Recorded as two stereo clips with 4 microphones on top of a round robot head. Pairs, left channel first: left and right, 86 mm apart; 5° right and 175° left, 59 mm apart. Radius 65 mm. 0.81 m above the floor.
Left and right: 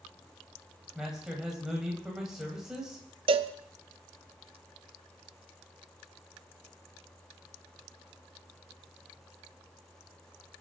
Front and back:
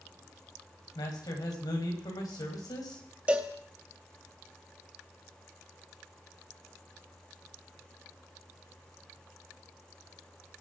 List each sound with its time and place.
0.9 s a man speaking: 5° right, 4 m
3.3 s a cowbell: 110° right, 0.7 m